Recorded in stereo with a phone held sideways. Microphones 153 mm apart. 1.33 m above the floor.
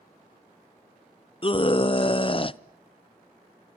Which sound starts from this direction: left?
A scream, at 1.4 s.